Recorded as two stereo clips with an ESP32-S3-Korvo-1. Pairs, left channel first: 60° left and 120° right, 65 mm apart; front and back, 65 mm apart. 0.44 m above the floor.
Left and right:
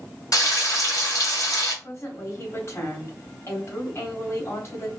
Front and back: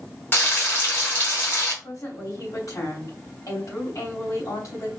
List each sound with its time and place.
0.3 s frying: 55° left, 2 m
1.8 s a woman speaking: 20° left, 2.5 m